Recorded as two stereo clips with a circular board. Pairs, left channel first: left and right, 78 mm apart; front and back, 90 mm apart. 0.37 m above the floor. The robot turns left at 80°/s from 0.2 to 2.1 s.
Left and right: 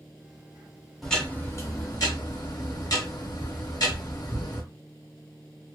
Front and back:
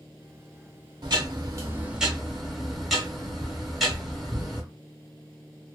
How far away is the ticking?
About 1.1 m.